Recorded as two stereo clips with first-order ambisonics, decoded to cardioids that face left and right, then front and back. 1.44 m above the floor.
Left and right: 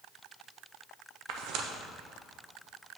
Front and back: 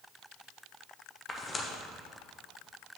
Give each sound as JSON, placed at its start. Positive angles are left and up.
{"t": 1.3, "sound": "tearing paper", "azimuth_deg": -70, "distance_m": 0.6}